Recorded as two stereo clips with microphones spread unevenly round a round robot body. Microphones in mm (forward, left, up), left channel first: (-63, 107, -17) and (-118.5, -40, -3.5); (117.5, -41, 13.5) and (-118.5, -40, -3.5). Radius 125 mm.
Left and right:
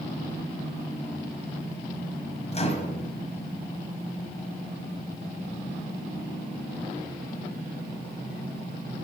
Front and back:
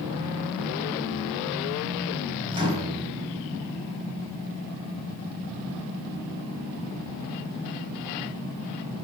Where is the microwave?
110° left, 1.5 m.